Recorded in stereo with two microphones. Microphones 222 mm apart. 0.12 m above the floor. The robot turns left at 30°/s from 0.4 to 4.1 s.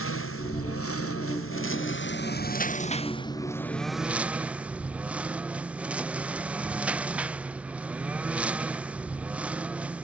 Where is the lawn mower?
105° left; by 10.0 s 5° right.